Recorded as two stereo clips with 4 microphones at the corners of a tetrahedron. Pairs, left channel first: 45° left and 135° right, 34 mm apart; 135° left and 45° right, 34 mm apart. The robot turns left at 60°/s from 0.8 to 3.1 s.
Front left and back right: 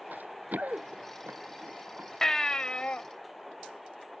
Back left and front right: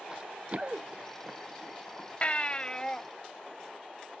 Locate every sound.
0.1 s running footsteps: 115° right; by 2.1 s 160° right
2.2 s a baby crying: 115° left; by 3.0 s 65° left